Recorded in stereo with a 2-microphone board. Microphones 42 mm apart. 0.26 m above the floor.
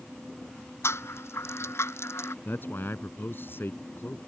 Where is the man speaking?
55° left (ahead or behind).